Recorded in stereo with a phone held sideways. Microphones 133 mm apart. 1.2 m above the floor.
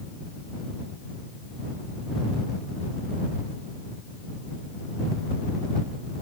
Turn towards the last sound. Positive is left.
No sound to turn to.